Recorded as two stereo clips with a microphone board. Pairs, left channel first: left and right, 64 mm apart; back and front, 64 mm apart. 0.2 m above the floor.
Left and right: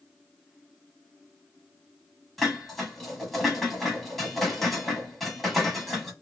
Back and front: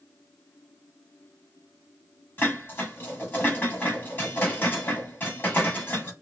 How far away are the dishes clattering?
About 1.0 m.